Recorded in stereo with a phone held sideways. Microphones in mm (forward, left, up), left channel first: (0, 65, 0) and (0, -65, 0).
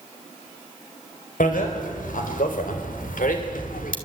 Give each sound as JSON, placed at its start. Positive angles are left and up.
{"t": 1.4, "sound": "a bicycle bell", "side_deg": 80, "distance_m": 4.5}